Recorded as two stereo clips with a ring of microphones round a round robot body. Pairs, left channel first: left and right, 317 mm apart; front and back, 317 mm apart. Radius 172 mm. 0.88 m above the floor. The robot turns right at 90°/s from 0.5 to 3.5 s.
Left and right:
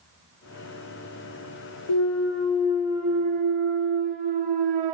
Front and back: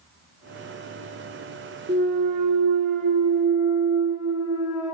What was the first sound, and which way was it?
A clunk, 115° left.